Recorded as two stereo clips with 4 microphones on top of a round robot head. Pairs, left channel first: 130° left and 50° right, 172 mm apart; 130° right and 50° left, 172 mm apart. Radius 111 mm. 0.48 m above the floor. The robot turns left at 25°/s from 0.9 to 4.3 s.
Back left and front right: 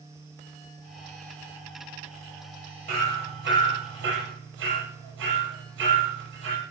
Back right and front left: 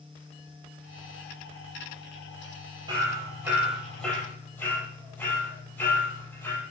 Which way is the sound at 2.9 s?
15° right.